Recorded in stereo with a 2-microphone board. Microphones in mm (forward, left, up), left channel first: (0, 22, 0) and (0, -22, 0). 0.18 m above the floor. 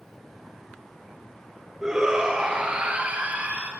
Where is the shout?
10° right (ahead or behind), 2.5 m; by 3.7 s 35° right (ahead or behind), 3.5 m.